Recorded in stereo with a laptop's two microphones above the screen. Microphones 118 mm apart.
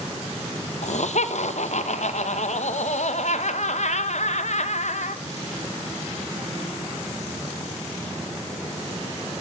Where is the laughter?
70° left (ahead or behind), 0.7 m.